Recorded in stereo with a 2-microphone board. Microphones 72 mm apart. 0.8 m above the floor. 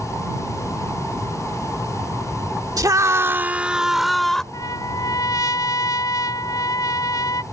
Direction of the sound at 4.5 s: 55° left (ahead or behind).